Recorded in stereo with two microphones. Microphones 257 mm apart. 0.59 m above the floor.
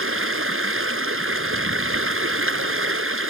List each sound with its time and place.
0.0 s running water: 55° right (ahead or behind)